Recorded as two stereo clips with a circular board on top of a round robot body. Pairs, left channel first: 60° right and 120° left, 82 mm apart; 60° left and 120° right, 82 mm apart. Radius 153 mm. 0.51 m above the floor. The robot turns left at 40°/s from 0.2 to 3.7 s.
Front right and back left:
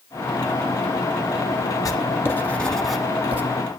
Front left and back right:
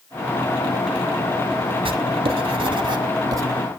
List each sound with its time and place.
1.9 s writing: 110° right, 1.2 m; by 3.4 s 175° right, 1.2 m